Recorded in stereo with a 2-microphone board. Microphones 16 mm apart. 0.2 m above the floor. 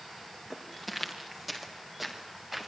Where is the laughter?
I don't hear laughter.